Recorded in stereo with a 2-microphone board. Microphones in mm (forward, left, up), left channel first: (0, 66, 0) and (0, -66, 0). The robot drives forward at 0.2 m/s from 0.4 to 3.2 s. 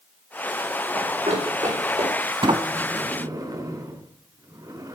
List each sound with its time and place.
0.9 s running footsteps: 55° right (ahead or behind), 6 m; by 2.3 s 70° right (ahead or behind), 6.5 m
2.4 s a sliding door: 40° right (ahead or behind), 0.6 m; by 5.0 s 30° right (ahead or behind), 0.7 m